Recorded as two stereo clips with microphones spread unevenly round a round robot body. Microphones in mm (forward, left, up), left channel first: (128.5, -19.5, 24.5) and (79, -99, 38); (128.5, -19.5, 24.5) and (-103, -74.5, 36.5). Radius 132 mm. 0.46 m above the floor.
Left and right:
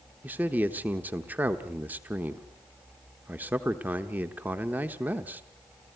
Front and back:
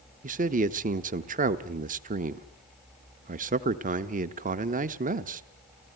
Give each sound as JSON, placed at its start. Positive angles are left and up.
{"t": 0.2, "sound": "a man speaking", "azimuth_deg": 165, "distance_m": 0.8}